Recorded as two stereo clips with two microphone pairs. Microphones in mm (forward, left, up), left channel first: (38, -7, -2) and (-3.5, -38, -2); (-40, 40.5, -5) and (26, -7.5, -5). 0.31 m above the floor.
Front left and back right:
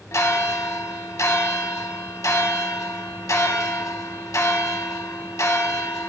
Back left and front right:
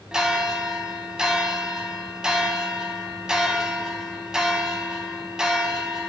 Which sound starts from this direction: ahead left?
A bell, at 0.1 s.